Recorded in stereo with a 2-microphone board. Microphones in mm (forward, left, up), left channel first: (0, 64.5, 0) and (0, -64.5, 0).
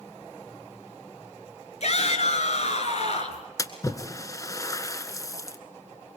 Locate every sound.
1.8 s a shout: 55° left (ahead or behind), 3.5 m
3.6 s a splash: 25° left (ahead or behind), 1.5 m